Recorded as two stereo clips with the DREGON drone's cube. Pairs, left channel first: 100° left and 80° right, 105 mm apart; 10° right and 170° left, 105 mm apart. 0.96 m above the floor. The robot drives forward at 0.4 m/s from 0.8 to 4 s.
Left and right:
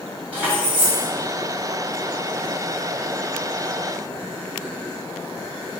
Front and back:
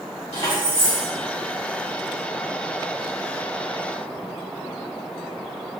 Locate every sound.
0.3 s keys jangling: 5° right, 1.9 m